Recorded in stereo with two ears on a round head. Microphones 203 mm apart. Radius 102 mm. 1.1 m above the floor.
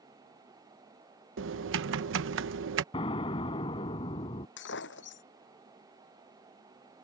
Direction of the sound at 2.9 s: 25° left (ahead or behind).